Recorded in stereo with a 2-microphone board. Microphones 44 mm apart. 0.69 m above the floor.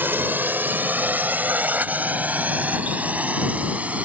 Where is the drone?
55° right (ahead or behind); by 4.0 s 35° right (ahead or behind).